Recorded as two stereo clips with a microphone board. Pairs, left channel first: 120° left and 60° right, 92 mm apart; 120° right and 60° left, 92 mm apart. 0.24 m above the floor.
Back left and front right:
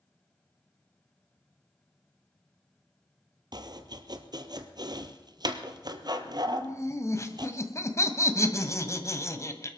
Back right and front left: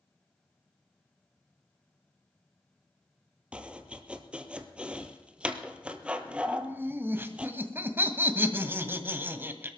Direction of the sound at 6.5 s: 105° left.